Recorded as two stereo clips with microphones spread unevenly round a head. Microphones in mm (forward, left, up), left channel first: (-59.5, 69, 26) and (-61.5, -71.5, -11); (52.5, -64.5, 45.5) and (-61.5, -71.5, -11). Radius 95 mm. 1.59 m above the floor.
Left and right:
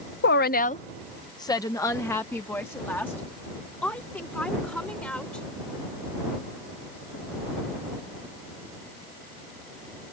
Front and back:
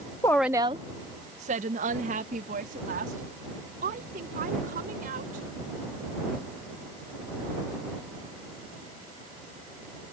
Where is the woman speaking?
75° left; by 5.5 s 170° left.